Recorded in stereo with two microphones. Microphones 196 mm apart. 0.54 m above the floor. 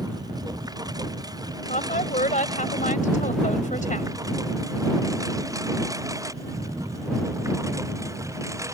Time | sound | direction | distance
0.0 | a lawn mower | 20° right (ahead or behind) | ?
1.7 | a woman speaking | 40° left (ahead or behind) | ?